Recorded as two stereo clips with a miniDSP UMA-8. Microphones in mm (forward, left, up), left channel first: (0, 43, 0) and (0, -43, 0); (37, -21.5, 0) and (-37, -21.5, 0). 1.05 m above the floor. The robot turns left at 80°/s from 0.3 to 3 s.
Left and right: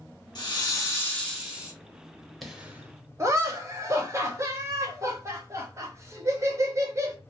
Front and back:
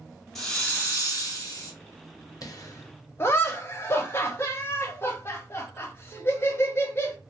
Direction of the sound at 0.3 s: 80° left.